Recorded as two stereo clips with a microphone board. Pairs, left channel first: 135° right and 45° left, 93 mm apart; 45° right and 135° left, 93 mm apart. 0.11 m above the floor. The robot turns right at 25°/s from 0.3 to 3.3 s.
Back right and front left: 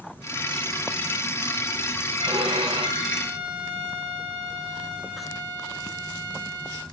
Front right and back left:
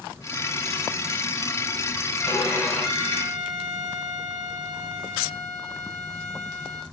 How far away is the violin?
About 9 m.